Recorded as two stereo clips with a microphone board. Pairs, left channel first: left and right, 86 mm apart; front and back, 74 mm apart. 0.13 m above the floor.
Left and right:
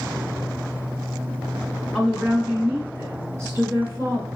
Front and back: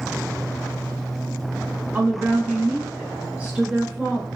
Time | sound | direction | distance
1.9 | a woman speaking | 170° right | 1.4 m